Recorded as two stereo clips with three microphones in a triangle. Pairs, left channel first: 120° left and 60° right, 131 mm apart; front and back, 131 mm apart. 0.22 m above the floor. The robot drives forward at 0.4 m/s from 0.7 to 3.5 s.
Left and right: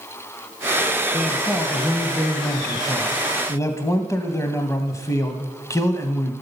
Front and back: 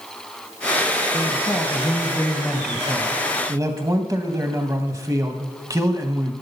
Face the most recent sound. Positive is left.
turn(degrees=155)